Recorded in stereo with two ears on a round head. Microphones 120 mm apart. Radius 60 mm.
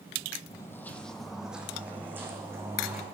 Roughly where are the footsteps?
Left.